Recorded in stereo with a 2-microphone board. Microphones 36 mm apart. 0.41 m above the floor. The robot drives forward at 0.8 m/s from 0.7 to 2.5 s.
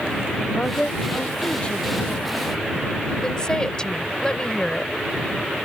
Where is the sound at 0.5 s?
30° left (ahead or behind); by 2.2 s 25° left (ahead or behind).